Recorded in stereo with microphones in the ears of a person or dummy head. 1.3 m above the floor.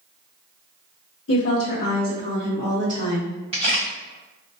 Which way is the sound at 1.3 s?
70° left (ahead or behind).